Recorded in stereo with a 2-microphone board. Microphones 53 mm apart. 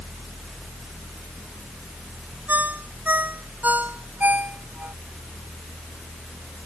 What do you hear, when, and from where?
2.5 s a ringtone: 35° right (ahead or behind)